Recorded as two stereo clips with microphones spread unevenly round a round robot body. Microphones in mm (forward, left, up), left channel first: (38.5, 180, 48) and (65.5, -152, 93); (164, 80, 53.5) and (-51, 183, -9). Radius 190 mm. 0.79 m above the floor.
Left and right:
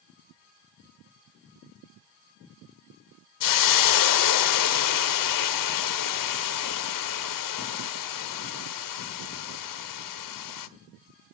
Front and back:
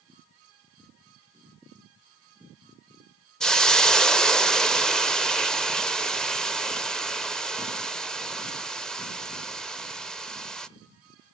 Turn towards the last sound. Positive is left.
turn(degrees=60)